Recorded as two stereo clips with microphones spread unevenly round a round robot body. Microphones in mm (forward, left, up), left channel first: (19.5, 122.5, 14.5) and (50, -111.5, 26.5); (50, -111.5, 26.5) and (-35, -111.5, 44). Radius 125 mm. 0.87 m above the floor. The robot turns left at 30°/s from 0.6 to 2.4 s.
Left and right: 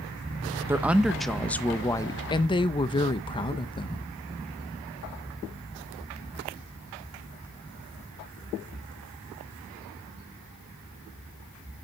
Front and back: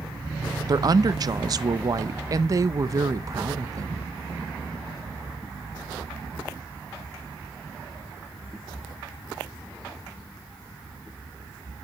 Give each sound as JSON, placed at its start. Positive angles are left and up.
{"t": 0.7, "sound": "a woman speaking", "azimuth_deg": -160, "distance_m": 0.6}